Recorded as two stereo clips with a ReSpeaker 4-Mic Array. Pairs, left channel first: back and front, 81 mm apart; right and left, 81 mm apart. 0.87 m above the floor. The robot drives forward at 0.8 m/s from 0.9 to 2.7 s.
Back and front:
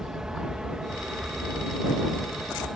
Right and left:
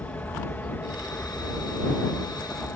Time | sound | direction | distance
0.0 | an aircraft | 70° right | ?